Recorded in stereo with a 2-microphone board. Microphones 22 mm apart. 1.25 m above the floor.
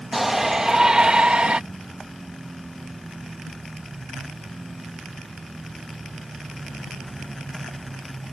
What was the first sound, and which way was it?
A shout, 5° right (ahead or behind).